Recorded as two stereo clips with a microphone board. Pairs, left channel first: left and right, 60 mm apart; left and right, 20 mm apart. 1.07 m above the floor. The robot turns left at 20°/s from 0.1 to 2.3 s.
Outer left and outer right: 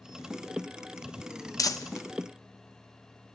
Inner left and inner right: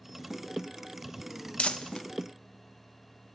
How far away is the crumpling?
About 0.6 m.